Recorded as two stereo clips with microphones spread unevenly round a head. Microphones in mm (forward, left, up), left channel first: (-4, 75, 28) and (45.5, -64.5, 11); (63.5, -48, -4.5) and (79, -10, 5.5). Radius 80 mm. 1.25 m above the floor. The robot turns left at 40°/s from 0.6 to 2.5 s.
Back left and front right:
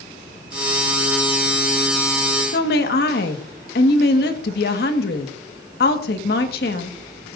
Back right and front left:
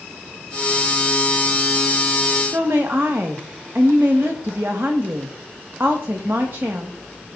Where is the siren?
I don't hear a siren.